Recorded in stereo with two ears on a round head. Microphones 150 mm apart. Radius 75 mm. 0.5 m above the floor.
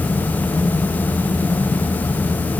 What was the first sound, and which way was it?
Only background noise.